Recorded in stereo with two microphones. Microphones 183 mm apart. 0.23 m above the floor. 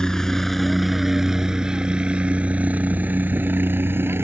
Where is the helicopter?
5° left (ahead or behind); by 4.2 s 15° right (ahead or behind).